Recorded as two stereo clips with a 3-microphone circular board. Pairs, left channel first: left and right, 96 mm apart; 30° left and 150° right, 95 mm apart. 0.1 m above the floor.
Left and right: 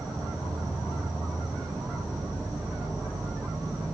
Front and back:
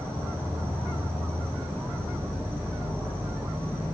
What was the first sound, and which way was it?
An insect, 100° right.